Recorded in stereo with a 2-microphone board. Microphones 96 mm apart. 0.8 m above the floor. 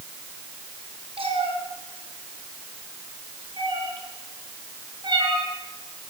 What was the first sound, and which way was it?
A cat meowing, 70° right (ahead or behind).